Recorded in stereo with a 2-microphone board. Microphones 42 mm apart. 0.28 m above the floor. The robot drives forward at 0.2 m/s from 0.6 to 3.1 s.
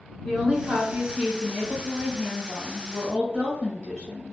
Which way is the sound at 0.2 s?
15° right (ahead or behind).